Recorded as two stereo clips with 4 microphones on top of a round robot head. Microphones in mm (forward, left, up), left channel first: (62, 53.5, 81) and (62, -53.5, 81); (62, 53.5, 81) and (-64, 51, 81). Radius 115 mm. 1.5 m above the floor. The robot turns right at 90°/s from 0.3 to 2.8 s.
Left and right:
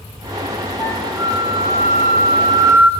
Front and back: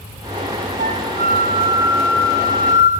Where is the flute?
165° left, 3.5 m; by 2.9 s 15° right, 3.5 m.